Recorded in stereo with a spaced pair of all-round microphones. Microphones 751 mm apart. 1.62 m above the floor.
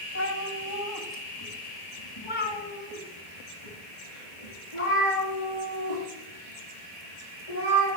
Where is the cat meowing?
20° left (ahead or behind), 1.9 m; by 7.9 s 45° left (ahead or behind), 6.5 m.